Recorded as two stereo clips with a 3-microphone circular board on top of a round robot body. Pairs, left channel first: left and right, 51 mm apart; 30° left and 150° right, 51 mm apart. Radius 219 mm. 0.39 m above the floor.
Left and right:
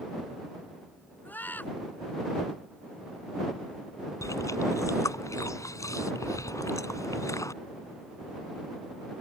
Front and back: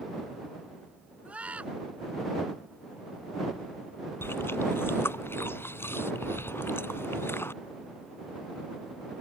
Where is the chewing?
75° left.